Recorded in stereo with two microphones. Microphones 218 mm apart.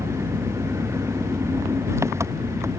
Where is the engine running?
10° right (ahead or behind).